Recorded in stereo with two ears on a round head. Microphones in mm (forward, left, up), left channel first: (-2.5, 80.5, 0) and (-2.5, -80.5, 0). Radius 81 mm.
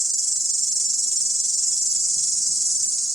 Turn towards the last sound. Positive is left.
turn(degrees=5)  # may be behind; listen again after turning